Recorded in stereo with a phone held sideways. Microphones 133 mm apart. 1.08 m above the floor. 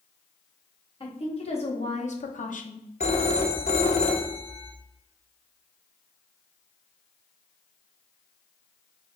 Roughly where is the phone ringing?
Left.